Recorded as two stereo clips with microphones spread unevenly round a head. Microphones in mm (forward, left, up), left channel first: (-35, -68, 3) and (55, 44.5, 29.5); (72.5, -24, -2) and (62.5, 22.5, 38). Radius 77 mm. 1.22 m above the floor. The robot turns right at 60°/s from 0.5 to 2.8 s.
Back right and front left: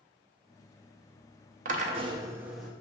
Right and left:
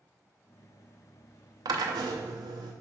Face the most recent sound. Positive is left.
turn(degrees=160)